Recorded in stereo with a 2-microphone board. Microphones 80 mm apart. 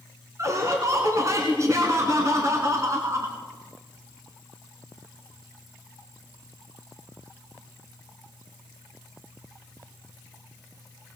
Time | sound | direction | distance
0.4 | laughter | 40° right (ahead or behind) | 2 m